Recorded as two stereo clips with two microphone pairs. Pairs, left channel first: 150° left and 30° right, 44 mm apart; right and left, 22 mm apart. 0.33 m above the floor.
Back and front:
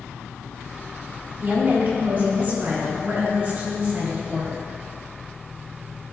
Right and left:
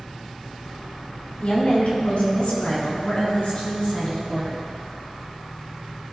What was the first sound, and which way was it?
A woman speaking, 70° right.